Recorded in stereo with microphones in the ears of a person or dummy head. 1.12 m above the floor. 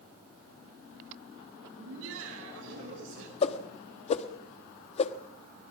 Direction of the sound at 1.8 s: 75° right (ahead or behind).